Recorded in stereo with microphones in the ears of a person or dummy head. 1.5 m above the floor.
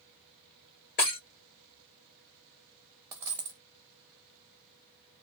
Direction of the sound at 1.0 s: 45° left (ahead or behind).